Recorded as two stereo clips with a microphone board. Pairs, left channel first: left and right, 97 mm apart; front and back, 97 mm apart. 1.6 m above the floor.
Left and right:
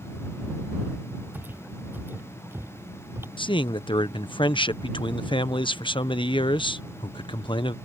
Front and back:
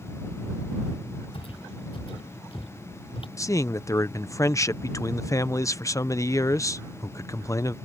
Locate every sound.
1.3 s footsteps: 20° right; by 3.3 s 25° right
3.4 s a man speaking: 55° left